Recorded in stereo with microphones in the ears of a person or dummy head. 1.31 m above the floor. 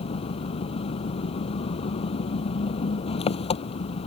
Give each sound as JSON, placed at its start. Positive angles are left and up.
{"t": 0.0, "sound": "an engine running", "side_deg": 30}